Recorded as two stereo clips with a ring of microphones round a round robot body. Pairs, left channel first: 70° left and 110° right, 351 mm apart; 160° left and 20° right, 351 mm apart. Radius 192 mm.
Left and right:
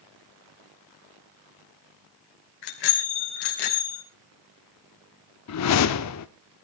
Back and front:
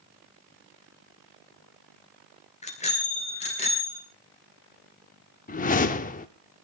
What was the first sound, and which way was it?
A bicycle bell, 85° left.